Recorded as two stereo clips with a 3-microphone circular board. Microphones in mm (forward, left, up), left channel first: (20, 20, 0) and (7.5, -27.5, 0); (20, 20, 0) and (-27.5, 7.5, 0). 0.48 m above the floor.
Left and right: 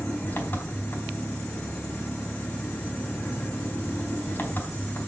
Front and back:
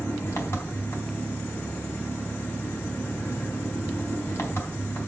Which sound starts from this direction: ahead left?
An engine running, at 0.0 s.